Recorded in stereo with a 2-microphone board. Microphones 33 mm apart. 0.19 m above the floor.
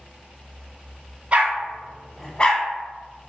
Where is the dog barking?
40° right (ahead or behind), 0.7 m; by 3.3 s 55° left (ahead or behind), 1.0 m.